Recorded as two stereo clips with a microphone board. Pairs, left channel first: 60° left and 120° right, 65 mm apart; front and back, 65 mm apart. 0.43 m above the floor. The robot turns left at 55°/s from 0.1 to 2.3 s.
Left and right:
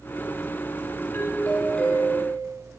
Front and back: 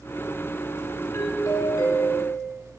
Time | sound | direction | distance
1.1 | a doorbell | 20° left | 3 m